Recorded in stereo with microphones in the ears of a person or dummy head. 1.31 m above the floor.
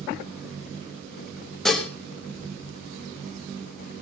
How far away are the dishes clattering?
About 1.4 m.